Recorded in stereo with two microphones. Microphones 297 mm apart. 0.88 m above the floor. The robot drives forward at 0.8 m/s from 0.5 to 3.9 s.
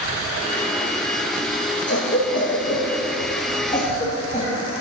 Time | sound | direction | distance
1.9 | a cough | 40° left (ahead or behind) | 1.1 m